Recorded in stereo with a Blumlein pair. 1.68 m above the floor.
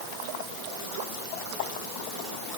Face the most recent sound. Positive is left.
No sound to turn to.